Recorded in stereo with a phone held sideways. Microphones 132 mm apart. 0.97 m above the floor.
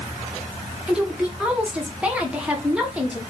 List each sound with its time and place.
0.9 s a woman speaking: 10° right (ahead or behind), 1.0 m